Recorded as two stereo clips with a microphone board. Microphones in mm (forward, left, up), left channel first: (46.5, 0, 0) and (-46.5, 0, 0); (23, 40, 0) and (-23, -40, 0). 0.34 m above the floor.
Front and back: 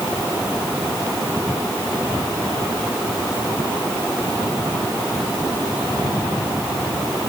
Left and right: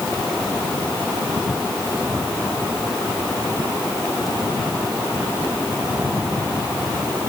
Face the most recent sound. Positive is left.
No sound to turn to.